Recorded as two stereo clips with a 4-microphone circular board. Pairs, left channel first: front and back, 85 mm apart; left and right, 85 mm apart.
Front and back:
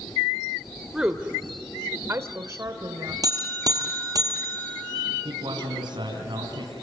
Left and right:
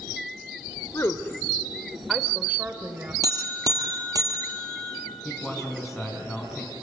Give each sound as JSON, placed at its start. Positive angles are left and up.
{"t": 0.9, "sound": "a woman speaking", "azimuth_deg": 105, "distance_m": 1.4}
{"t": 3.2, "sound": "a buzzer", "azimuth_deg": -135, "distance_m": 3.5}
{"t": 5.2, "sound": "a man speaking", "azimuth_deg": 180, "distance_m": 4.0}